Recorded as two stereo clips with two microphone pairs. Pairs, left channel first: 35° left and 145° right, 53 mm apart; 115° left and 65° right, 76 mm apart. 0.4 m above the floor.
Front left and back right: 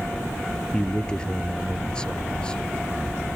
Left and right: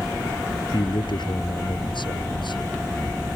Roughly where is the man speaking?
Left.